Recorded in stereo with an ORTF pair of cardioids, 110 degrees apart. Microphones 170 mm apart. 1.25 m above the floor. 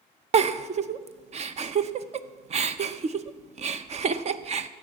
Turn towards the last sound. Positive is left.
turn(degrees=-40)